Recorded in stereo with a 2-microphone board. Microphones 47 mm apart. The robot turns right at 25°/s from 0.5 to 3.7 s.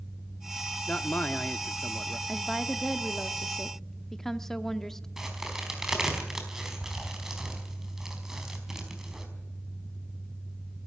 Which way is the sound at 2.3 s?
20° right.